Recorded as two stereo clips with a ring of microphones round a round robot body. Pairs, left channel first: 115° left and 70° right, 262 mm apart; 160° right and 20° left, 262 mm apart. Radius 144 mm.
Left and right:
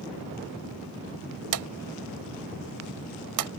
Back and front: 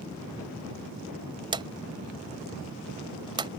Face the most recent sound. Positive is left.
turn(degrees=-50)